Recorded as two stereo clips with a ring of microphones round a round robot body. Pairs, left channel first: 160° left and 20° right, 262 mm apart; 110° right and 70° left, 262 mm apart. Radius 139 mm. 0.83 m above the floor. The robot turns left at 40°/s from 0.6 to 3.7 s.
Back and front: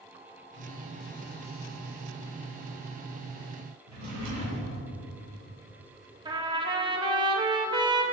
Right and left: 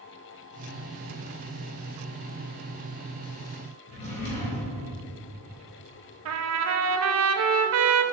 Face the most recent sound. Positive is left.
turn(degrees=50)